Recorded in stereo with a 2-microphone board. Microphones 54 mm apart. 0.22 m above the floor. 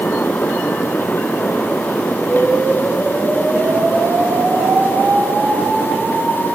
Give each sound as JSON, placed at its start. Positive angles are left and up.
{"t": 2.2, "sound": "an explosion", "side_deg": -80, "distance_m": 5.0}